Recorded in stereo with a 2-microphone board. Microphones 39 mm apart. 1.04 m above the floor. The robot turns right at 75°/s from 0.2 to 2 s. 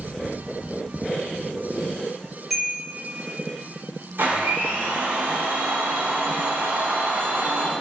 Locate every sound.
2.5 s a chime: 5° right (ahead or behind), 2.5 m
4.2 s a blender: 80° right, 3.5 m